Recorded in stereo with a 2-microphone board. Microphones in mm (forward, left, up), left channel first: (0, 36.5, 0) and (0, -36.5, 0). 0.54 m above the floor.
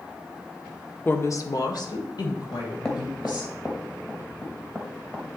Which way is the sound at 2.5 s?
10° left (ahead or behind).